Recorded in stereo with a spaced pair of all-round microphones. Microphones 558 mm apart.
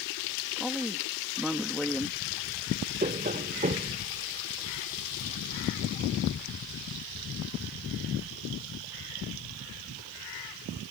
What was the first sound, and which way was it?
A woman speaking, centre (ahead or behind).